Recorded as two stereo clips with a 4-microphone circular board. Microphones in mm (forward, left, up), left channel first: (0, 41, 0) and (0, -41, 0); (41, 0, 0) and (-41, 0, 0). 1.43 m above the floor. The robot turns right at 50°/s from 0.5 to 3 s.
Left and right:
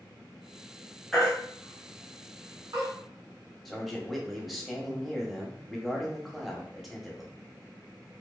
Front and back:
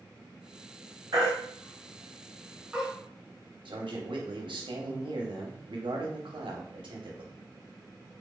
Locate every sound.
1.1 s a baby crying: 175° left, 0.9 m; by 2.9 s 95° right, 0.9 m
3.6 s a man speaking: straight behind, 0.7 m